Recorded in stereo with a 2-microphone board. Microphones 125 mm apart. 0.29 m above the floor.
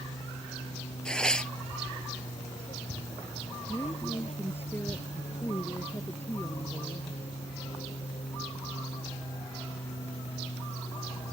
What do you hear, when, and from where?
0.0 s an aircraft: 65° left (ahead or behind); by 11.3 s 55° left (ahead or behind)
1.1 s tearing paper: 5° left (ahead or behind)
3.7 s a woman speaking: 15° left (ahead or behind)